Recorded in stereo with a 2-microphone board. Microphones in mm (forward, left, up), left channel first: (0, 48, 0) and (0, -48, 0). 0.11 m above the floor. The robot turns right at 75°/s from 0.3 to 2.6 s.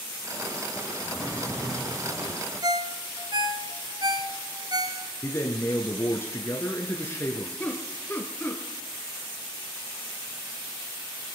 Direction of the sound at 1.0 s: 150° left.